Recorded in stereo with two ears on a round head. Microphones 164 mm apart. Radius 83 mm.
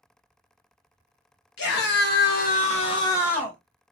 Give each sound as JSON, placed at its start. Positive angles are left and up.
{"t": 1.6, "sound": "a scream", "side_deg": 65, "distance_m": 1.2}